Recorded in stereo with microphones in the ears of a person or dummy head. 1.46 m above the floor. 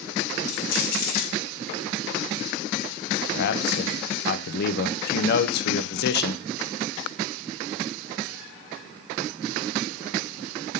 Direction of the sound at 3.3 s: 55° left (ahead or behind).